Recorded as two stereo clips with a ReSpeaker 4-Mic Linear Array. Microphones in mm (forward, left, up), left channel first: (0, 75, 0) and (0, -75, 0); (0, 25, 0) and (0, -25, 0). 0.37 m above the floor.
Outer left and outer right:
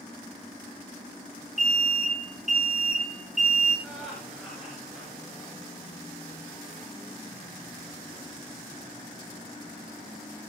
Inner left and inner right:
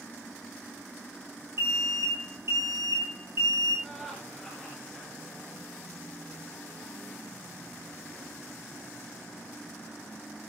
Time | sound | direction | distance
1.6 | an alarm | 50° right (ahead or behind) | 6.5 m
3.8 | laughter | centre (ahead or behind) | 4.5 m